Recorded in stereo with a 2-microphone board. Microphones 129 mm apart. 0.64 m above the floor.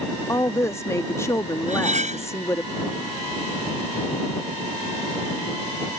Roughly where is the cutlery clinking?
Right.